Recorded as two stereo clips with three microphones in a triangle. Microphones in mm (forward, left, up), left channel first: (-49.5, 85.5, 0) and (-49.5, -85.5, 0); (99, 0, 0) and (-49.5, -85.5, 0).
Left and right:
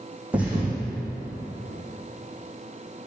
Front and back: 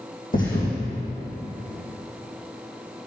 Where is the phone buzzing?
I don't hear a phone buzzing.